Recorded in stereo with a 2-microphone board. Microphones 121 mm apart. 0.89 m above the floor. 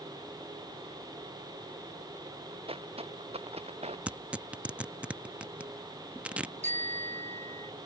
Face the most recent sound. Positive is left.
turn(degrees=-70)  # may be behind; listen again after turning